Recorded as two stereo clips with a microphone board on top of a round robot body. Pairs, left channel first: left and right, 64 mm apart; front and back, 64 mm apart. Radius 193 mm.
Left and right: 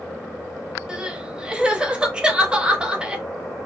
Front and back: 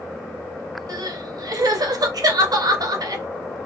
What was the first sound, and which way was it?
Crying, 165° right.